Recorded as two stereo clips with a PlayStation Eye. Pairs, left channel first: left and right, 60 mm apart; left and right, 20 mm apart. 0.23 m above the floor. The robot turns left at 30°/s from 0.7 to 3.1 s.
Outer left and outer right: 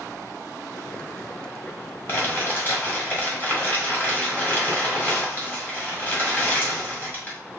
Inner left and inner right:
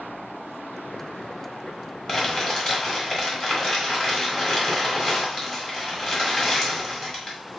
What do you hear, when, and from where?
2.1 s crumpling: 85° left, 1.3 m; by 7.4 s 55° left, 1.3 m